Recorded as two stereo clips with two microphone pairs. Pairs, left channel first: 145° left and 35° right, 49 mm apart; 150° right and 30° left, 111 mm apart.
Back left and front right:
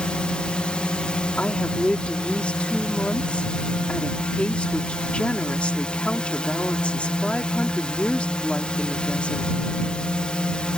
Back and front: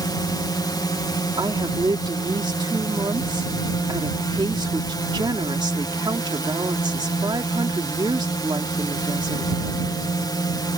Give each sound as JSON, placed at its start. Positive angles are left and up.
{"t": 0.0, "sound": "a drone", "azimuth_deg": -160}
{"t": 1.4, "sound": "a woman speaking", "azimuth_deg": 80}